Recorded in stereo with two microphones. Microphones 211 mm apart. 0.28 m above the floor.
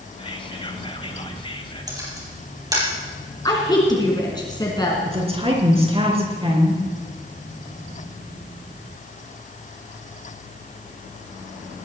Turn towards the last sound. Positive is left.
turn(degrees=-25)  # may be behind; listen again after turning